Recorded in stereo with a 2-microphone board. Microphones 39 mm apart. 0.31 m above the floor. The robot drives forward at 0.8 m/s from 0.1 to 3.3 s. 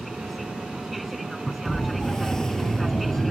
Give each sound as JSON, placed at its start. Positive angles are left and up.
{"t": 0.0, "sound": "an aircraft", "side_deg": 0}
{"t": 1.6, "sound": "a siren", "side_deg": 15}